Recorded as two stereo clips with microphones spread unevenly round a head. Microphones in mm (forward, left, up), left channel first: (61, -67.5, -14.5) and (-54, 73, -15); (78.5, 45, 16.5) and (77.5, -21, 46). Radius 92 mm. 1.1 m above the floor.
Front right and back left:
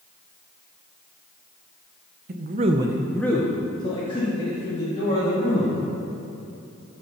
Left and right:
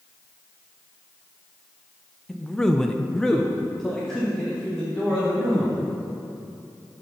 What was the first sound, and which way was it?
A man speaking, 150° left.